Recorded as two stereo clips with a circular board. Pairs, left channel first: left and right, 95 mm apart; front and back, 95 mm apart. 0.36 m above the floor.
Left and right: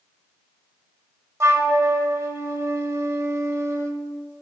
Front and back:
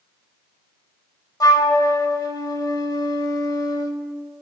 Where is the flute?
35° right, 0.9 m.